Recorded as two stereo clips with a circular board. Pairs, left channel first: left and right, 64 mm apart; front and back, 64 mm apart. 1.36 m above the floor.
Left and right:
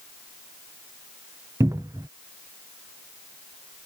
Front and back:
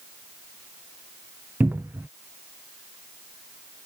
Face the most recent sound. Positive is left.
turn(degrees=-120)